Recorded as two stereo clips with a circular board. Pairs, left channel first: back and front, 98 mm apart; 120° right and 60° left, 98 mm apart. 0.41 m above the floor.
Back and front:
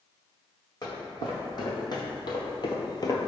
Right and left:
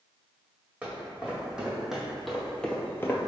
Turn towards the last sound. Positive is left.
turn(degrees=-150)